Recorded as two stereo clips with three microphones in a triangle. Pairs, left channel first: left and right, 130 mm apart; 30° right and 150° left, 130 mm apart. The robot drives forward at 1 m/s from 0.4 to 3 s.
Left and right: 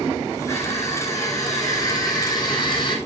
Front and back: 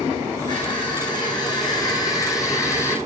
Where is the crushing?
25° left, 5.5 m; by 3.0 s 40° left, 3.5 m.